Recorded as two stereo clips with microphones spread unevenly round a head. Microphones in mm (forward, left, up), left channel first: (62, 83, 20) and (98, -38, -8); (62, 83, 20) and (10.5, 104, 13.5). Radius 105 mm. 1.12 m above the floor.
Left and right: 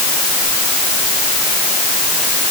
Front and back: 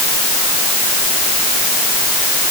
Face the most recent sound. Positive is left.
No sound to turn to.